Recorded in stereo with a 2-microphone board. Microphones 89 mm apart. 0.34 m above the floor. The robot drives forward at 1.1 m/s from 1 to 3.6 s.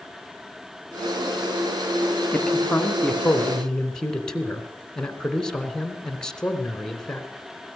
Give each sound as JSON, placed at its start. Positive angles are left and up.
{"t": 2.3, "sound": "a man speaking", "side_deg": 10, "distance_m": 2.0}